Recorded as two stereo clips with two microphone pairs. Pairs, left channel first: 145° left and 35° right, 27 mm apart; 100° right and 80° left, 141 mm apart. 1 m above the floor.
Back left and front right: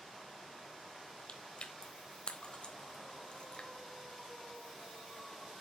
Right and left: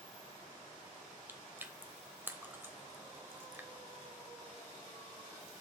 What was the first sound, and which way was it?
Chewing, 150° left.